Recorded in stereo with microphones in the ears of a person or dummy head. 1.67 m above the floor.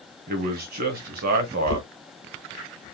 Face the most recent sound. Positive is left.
turn(degrees=70)  # may be behind; listen again after turning